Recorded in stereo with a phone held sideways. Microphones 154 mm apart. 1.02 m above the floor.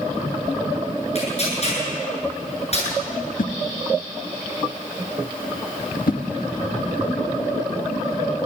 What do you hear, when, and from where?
1.1 s tearing paper: 50° left (ahead or behind), 9 m
3.4 s a whoosh: 70° left (ahead or behind), 1.1 m